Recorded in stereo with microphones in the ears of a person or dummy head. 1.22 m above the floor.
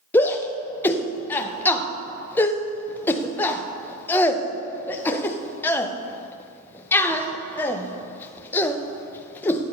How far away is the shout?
About 0.6 m.